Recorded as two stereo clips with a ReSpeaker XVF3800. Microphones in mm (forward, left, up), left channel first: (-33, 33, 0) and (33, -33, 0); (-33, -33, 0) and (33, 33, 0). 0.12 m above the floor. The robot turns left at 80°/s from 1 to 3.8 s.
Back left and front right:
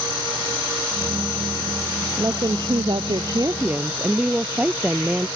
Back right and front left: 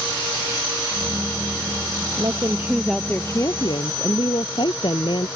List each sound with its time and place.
2.2 s a woman speaking: 10° left; by 5.3 s 120° right